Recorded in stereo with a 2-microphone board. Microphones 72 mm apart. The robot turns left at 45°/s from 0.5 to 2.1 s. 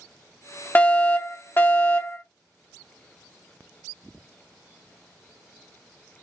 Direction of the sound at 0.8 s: 25° left (ahead or behind).